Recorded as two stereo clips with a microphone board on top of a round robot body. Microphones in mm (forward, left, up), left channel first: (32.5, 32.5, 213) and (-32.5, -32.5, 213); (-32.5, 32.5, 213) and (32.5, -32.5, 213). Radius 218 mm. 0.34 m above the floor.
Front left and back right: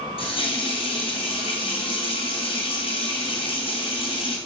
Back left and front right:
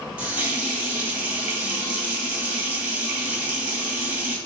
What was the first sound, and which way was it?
A running tap, 30° left.